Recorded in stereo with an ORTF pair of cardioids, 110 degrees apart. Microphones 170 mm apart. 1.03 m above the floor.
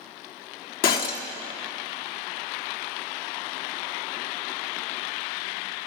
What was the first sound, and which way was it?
Breaking glass, 65° left.